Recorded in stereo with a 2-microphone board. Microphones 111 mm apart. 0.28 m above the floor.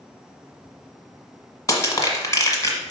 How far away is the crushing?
About 1.3 m.